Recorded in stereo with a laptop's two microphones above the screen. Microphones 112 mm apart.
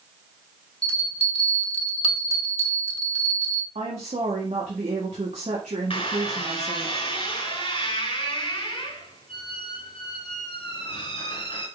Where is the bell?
60° left (ahead or behind), 1.3 m.